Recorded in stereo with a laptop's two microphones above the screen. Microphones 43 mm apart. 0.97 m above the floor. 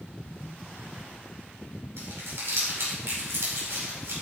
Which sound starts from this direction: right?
Crumpling, at 2.0 s.